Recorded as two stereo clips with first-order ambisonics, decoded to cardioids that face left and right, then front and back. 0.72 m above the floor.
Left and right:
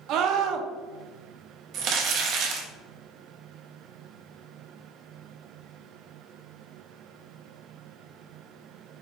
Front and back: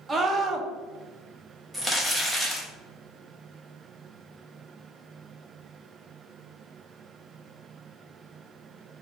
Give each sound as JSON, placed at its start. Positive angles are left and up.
{"t": 0.1, "sound": "a scream", "azimuth_deg": -110, "distance_m": 0.7}
{"t": 1.7, "sound": "crumpling", "azimuth_deg": -95, "distance_m": 0.9}